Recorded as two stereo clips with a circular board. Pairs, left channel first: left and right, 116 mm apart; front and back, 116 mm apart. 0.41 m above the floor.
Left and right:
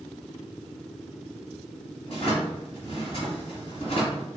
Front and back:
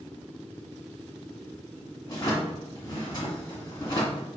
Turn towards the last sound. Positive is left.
turn(degrees=60)